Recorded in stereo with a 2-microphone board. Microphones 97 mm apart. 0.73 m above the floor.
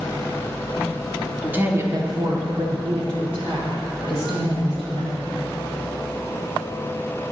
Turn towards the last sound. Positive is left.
turn(degrees=-80)